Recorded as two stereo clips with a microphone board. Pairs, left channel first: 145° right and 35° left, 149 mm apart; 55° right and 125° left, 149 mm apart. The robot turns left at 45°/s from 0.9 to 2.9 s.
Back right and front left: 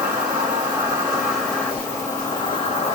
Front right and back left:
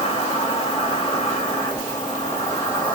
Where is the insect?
40° right, 1.3 m; by 3.0 s 130° right, 1.3 m.